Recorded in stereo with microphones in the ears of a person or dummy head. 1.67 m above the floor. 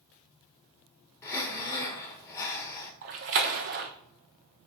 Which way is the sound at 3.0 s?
45° right (ahead or behind).